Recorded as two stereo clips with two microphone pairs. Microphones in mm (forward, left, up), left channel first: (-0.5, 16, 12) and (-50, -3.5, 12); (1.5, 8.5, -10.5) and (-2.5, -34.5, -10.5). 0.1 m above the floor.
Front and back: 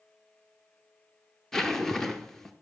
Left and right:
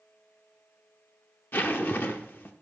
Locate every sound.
1.5 s a zipper: 105° left, 0.8 m